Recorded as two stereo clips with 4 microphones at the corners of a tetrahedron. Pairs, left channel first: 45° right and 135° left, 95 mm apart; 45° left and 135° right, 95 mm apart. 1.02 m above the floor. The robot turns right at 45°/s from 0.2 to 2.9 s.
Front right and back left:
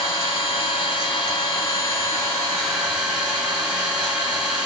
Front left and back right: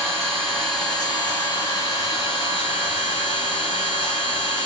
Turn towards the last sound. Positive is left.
turn(degrees=50)